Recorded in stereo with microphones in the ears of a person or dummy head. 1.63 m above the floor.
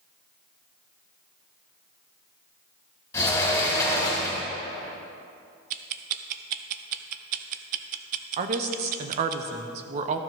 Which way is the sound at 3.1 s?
15° left (ahead or behind).